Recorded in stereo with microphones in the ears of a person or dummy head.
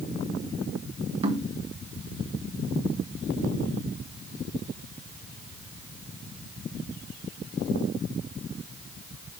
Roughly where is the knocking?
Right.